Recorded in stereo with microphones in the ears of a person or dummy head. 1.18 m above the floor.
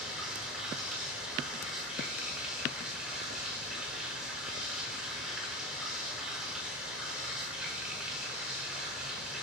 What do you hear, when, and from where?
0.0 s running water: 5° right (ahead or behind), 0.8 m